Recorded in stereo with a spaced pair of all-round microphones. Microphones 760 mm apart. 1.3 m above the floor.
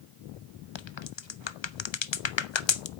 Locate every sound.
0.8 s a crack: 40° left (ahead or behind), 0.5 m